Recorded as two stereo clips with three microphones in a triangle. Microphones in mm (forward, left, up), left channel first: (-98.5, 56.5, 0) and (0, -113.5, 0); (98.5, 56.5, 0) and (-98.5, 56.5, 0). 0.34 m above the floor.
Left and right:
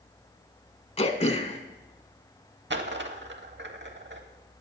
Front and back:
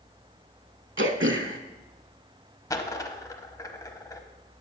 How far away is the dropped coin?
About 0.7 m.